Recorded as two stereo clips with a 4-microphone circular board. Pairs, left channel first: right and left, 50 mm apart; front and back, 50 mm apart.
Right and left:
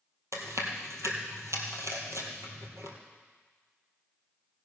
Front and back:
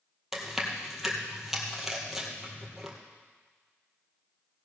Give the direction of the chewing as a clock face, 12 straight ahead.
9 o'clock.